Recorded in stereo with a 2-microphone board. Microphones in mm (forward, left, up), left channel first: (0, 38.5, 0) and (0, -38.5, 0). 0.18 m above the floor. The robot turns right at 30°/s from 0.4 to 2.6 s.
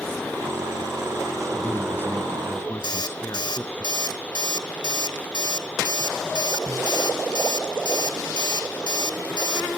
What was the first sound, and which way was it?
A man speaking, 45° left.